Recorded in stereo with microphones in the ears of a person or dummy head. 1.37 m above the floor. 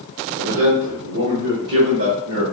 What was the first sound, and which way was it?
A man speaking, 55° right (ahead or behind).